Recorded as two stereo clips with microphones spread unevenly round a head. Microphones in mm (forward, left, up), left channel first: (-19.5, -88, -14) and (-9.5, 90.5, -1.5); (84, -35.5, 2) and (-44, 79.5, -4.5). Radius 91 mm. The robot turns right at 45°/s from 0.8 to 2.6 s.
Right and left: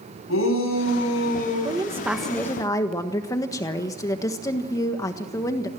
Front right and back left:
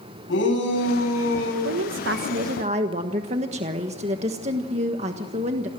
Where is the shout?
75° right, 10 m; by 1.5 s 40° right, 10 m.